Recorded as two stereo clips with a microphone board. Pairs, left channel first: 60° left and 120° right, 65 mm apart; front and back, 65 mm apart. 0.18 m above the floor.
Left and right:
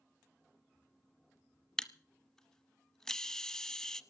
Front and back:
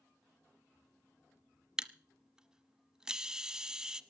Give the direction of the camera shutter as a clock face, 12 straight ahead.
8 o'clock.